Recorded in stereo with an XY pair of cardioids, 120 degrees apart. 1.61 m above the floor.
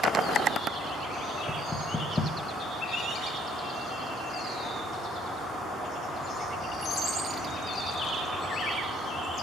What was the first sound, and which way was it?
Knocking, 10° left.